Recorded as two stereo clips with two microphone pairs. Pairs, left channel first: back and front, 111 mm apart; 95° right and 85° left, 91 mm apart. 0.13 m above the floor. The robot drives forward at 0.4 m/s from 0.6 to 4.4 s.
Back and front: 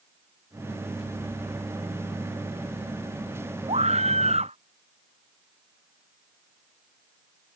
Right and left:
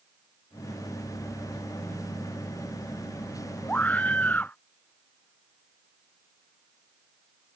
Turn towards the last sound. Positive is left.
turn(degrees=-25)